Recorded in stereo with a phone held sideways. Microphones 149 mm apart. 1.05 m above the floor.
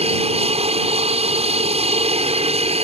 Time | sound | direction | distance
0.0 | an aircraft | 45° right (ahead or behind) | ?